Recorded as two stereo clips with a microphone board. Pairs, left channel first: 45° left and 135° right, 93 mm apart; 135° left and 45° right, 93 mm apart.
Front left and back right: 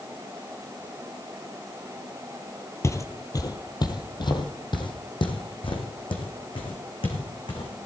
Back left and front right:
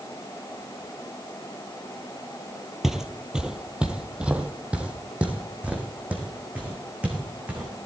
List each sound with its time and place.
2.8 s footsteps: 35° left, 1.3 m; by 7.9 s 30° left, 4 m